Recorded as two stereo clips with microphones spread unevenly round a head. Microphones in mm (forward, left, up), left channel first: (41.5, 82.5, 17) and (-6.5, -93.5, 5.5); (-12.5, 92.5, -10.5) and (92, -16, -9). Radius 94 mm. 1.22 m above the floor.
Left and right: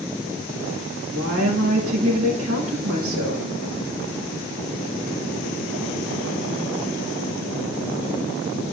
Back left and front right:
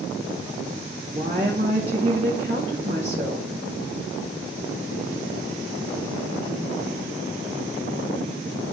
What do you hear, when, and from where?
1.1 s a woman speaking: 105° right, 2 m